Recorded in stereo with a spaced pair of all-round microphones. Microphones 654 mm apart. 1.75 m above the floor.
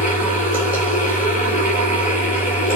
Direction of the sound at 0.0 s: 15° left (ahead or behind).